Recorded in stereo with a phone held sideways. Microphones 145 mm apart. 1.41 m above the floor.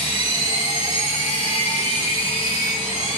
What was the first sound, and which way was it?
A machine running, 45° left (ahead or behind).